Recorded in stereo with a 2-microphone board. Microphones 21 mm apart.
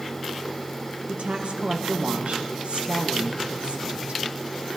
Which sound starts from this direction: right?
A woman speaking, at 1.1 s.